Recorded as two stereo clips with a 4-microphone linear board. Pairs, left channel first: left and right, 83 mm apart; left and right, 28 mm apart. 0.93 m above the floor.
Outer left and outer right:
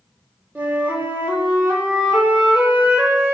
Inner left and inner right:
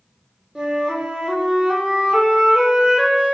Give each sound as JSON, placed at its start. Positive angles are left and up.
{"t": 0.6, "sound": "a flute", "side_deg": -20, "distance_m": 0.9}